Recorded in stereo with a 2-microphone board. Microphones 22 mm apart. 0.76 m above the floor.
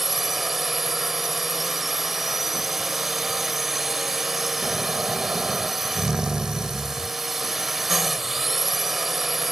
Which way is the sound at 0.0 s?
5° right (ahead or behind).